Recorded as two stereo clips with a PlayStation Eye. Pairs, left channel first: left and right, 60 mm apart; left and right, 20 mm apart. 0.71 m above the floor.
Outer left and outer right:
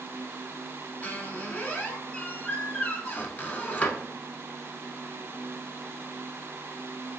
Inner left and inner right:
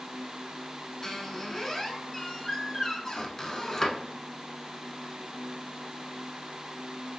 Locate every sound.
1.0 s a squeak: 25° left (ahead or behind), 0.8 m